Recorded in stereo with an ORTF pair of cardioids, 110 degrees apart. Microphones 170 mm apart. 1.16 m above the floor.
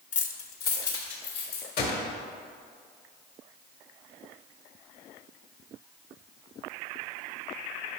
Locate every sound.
0.1 s keys jangling: 40° left, 0.9 m; by 1.7 s 75° left, 3 m
1.8 s a gunshot: 60° left, 2.0 m